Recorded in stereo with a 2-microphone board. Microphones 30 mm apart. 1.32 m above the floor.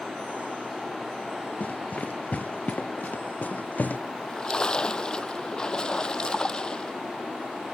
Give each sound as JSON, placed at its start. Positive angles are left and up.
{"t": 1.6, "sound": "running footsteps", "side_deg": 60}
{"t": 4.1, "sound": "a splash", "side_deg": 25}